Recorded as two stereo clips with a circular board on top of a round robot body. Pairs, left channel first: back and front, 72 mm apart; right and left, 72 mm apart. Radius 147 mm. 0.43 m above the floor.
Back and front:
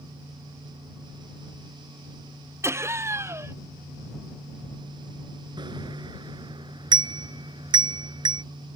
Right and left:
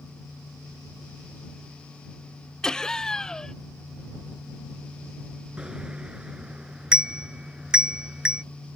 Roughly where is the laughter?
Ahead.